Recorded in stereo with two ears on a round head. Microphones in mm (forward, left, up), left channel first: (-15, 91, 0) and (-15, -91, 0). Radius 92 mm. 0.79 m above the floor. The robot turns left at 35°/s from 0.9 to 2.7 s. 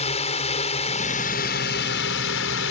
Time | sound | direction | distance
0.0 | a drone | 145° left | ?